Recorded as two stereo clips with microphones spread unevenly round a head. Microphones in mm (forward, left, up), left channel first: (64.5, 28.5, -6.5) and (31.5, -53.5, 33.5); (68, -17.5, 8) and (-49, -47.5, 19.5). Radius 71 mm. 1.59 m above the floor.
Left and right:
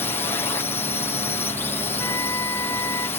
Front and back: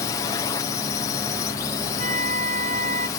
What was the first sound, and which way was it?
A drone, 65° left.